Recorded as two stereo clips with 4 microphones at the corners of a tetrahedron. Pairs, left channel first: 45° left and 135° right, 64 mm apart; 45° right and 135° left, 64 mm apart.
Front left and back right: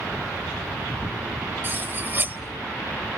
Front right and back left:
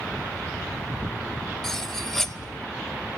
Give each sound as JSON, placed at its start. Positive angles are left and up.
{"t": 1.6, "sound": "cutlery clinking", "azimuth_deg": -120, "distance_m": 0.7}